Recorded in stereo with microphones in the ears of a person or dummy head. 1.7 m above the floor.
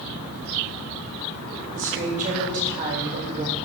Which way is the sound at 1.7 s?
40° right (ahead or behind).